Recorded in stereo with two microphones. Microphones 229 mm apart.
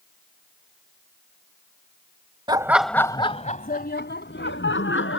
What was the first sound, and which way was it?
Laughter, 20° right (ahead or behind).